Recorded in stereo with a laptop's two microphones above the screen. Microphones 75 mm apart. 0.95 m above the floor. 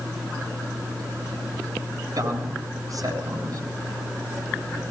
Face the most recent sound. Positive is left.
turn(degrees=-60)  # may be behind; listen again after turning